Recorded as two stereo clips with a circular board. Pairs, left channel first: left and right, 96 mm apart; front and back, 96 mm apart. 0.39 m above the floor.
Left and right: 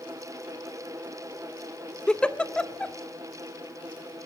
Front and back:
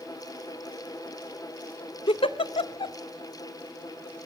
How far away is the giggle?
About 0.5 m.